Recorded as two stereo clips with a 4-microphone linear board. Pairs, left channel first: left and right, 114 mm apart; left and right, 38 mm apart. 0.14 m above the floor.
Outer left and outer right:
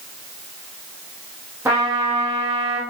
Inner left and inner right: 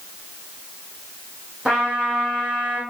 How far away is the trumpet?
About 3.5 m.